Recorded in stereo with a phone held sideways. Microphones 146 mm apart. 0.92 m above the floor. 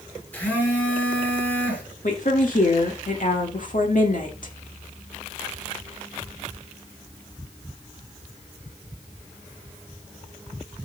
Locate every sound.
0.3 s a phone buzzing: 10° left (ahead or behind), 2.5 m
2.0 s a woman speaking: 65° left (ahead or behind), 1.7 m